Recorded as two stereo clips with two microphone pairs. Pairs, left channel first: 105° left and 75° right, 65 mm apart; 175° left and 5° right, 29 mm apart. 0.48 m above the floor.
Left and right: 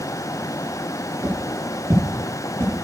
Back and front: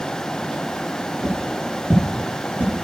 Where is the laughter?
No laughter in this recording.